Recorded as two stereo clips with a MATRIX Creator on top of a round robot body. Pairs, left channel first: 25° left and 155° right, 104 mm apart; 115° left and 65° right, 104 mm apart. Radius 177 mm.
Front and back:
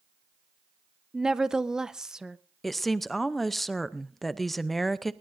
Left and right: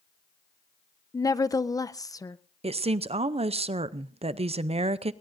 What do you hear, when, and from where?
1.1 s a woman speaking: 125° left, 0.7 m
2.6 s a woman speaking: 65° right, 0.6 m